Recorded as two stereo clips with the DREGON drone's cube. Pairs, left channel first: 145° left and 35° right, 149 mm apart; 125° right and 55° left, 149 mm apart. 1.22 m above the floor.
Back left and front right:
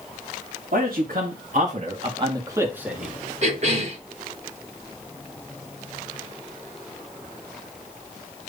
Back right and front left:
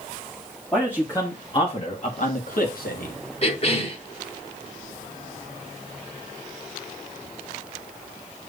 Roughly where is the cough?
Right.